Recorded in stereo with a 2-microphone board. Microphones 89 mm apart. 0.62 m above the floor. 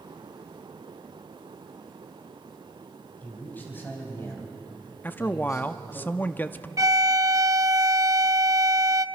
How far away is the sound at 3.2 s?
About 5 m.